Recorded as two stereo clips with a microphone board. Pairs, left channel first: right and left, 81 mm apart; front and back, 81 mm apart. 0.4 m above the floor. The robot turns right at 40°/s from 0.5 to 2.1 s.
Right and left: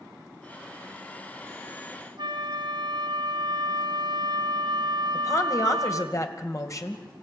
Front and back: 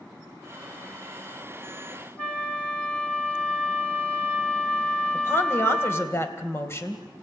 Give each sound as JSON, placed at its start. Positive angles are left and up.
{"t": 2.2, "sound": "a flute", "azimuth_deg": 75, "distance_m": 1.9}
{"t": 5.1, "sound": "a woman speaking", "azimuth_deg": -50, "distance_m": 2.0}